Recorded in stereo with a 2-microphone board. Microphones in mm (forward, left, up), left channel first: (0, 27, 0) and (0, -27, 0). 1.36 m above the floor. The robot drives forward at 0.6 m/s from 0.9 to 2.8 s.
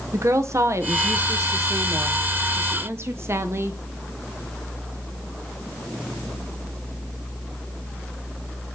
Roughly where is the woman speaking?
Right.